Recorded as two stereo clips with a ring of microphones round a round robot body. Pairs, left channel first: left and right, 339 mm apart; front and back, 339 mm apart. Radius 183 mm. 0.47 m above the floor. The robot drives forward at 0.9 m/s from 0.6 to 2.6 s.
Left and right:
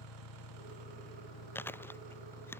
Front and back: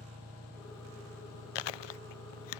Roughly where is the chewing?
Ahead.